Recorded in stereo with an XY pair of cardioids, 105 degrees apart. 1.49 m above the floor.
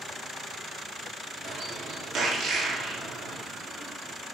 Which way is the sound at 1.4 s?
65° right.